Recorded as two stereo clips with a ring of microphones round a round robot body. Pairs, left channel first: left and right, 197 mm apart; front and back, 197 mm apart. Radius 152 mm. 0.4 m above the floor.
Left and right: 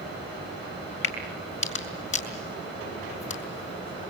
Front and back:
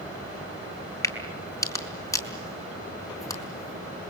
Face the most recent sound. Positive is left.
turn(degrees=75)